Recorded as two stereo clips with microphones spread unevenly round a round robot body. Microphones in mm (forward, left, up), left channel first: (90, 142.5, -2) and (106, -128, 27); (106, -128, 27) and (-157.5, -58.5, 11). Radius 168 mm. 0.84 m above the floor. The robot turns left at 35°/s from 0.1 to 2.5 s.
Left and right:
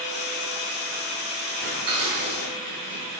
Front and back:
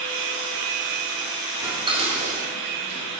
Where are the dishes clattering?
110° right, 2.5 m; by 3.0 s 145° right, 2.5 m.